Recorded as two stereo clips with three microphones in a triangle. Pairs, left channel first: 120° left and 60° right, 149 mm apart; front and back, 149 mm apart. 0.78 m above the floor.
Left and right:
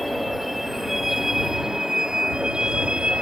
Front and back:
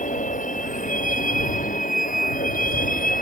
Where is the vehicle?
30° left; by 3.2 s 25° left.